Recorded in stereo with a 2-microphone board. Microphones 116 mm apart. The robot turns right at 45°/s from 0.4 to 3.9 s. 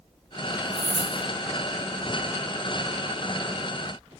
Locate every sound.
0.7 s keys jangling: 75° right (ahead or behind), 4 m